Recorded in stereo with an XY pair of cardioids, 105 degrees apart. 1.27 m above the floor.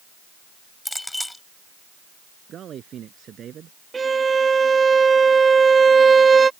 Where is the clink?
10° left.